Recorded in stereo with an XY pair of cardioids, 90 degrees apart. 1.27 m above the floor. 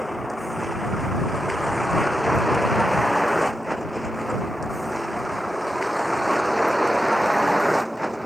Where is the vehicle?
5° left; by 8.3 s 5° right.